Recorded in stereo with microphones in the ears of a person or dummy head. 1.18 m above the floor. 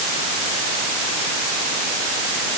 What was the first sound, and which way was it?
Only background noise.